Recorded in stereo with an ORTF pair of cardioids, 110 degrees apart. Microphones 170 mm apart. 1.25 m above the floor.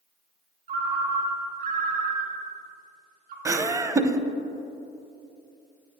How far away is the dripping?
I don't hear dripping.